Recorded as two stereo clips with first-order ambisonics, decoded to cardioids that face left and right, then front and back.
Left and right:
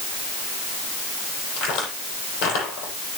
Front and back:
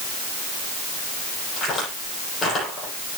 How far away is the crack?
About 9.5 m.